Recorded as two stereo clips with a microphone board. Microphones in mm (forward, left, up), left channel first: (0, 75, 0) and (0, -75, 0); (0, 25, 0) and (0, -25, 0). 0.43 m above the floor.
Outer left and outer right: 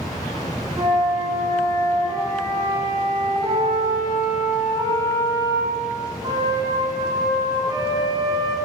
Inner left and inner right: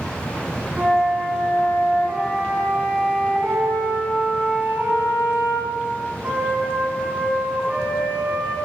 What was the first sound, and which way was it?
A flute, 25° right (ahead or behind).